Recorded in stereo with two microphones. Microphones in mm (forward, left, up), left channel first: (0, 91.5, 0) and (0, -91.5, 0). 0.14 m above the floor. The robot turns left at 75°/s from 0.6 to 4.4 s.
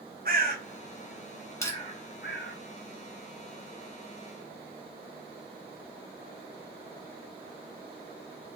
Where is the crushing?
15° left (ahead or behind), 1.3 m; by 1.8 s 20° left (ahead or behind), 1.3 m.